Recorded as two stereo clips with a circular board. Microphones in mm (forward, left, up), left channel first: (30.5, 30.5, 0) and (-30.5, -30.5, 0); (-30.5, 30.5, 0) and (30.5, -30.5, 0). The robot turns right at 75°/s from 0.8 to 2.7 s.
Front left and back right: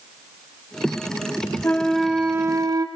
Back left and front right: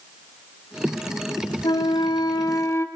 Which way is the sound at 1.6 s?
110° left.